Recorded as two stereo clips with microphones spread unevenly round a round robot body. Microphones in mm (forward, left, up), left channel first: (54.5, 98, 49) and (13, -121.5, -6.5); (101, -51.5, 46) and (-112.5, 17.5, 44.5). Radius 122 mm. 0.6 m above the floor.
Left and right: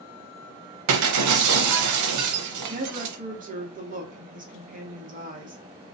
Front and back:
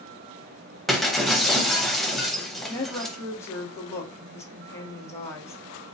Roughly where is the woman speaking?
Right.